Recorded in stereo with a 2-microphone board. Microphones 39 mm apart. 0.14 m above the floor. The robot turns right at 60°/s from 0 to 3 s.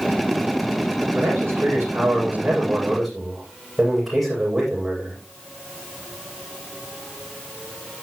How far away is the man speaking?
About 7 m.